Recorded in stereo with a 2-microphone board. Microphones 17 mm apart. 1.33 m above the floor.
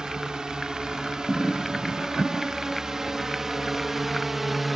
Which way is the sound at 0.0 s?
50° right (ahead or behind).